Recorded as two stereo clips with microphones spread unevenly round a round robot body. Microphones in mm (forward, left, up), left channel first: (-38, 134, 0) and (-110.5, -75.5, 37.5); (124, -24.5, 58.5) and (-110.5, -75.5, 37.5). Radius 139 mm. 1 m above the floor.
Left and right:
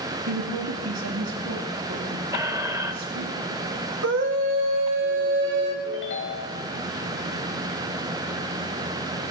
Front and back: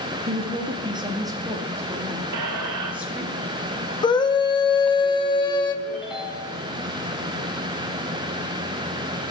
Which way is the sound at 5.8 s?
105° left.